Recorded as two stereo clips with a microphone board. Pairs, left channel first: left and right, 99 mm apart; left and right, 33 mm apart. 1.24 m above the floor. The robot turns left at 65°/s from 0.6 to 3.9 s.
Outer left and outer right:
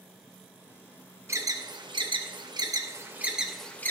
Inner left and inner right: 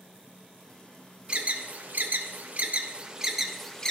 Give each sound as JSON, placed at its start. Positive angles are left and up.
{"t": 1.3, "sound": "an alarm", "side_deg": -25, "distance_m": 0.7}